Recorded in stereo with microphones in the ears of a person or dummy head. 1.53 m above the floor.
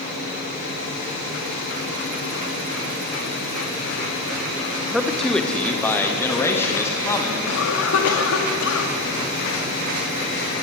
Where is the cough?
85° left, 3.5 m.